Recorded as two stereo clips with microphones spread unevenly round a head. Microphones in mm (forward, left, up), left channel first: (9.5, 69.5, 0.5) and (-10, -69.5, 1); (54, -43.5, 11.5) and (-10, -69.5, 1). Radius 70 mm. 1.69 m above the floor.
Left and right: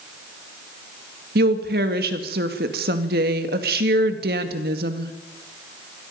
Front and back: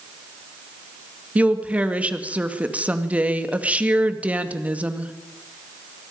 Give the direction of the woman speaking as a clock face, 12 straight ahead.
3 o'clock.